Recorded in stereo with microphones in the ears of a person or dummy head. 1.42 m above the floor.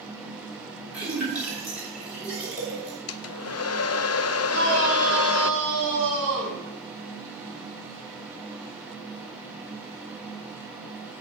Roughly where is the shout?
Right.